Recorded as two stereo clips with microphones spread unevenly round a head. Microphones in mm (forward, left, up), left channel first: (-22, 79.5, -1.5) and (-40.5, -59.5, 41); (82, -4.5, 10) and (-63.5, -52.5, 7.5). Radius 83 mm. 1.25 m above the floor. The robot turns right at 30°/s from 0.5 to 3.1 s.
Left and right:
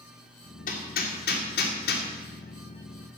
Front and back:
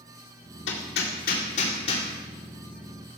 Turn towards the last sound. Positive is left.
turn(degrees=115)